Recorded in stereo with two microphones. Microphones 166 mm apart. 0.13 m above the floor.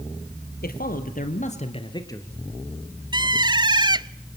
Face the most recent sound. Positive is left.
turn(degrees=-25)  # may be behind; listen again after turning